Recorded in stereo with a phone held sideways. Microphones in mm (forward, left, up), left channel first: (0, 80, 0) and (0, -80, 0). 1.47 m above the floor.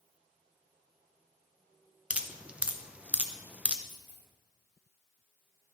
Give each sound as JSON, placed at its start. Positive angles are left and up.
{"t": 2.1, "sound": "dripping", "side_deg": -10, "distance_m": 0.7}
{"t": 3.9, "sound": "a dropped coin", "side_deg": -40, "distance_m": 2.0}